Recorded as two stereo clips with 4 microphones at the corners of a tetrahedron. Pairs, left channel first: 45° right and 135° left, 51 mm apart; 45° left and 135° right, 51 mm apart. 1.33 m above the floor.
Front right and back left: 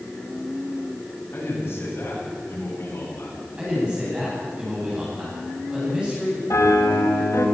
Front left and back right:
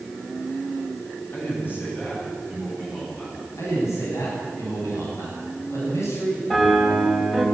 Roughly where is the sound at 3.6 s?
Ahead left.